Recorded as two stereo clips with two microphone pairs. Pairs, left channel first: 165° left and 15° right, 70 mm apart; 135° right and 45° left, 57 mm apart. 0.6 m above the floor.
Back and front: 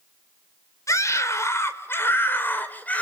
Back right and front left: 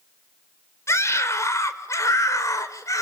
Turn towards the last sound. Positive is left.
turn(degrees=-130)